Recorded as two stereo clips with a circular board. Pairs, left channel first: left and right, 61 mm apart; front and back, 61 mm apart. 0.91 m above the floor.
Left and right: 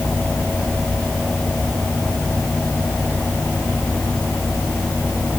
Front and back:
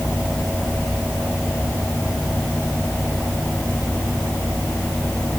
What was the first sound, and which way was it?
Only background noise.